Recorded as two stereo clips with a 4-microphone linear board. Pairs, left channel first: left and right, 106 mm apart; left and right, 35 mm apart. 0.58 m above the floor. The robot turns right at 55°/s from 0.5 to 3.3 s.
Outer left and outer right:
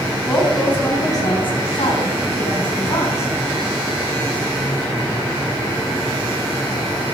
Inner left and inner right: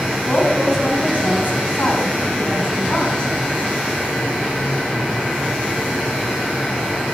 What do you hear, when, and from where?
0.3 s a woman speaking: 5° left, 4.5 m; by 3.3 s 160° left, 4.5 m